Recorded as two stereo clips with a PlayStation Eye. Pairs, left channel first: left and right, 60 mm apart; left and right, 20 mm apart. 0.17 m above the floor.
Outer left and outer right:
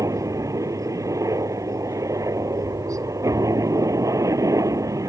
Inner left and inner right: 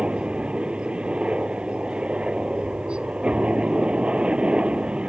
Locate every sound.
0.0 s a helicopter: 70° right (ahead or behind)